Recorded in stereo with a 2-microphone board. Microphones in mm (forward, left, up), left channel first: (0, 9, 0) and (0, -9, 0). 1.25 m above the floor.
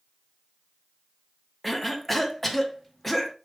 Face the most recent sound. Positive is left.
turn(degrees=0)  # may be behind; listen again after turning